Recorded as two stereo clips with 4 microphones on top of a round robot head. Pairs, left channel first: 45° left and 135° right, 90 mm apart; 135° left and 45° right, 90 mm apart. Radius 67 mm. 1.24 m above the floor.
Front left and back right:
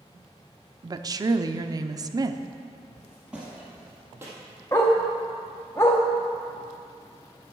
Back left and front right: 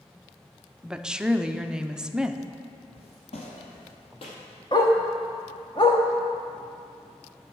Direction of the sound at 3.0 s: 135° left.